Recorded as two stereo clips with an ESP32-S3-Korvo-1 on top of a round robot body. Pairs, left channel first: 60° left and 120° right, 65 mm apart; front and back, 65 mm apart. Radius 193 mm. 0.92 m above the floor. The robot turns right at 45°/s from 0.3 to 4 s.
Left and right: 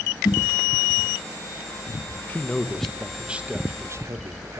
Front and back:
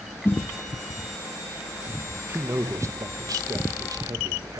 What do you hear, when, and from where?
0.2 s a snare drum: 60° left, 0.5 m; by 0.4 s 65° left, 0.5 m
2.3 s a man speaking: 120° left, 1.6 m; by 4.6 s 160° right, 1.6 m